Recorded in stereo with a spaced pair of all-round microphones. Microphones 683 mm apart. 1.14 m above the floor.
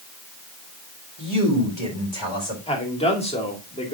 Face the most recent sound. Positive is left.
turn(degrees=10)  # may be behind; listen again after turning